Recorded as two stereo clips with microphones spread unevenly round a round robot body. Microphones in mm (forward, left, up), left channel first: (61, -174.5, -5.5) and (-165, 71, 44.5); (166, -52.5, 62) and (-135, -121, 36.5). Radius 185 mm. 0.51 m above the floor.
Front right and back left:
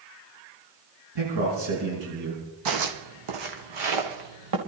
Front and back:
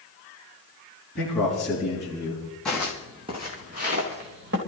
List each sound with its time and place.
1.1 s a man speaking: 100° left, 5.5 m; by 2.4 s 110° left, 5 m
2.6 s footsteps: 100° left, 1.6 m; by 4.6 s 130° left, 3.5 m